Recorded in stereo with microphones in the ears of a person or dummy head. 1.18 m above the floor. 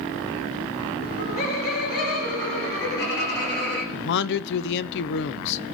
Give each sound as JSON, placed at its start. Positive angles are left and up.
{"t": 1.0, "sound": "laughter", "side_deg": 40, "distance_m": 1.7}
{"t": 3.9, "sound": "a man speaking", "side_deg": 60, "distance_m": 0.5}